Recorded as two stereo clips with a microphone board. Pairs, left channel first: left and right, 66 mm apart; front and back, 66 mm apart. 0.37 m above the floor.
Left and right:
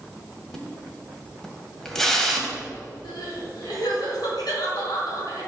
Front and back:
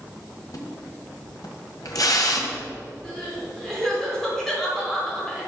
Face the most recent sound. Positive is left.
turn(degrees=85)